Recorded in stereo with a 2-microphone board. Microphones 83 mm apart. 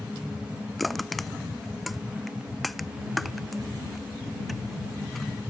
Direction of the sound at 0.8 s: Centre (ahead or behind).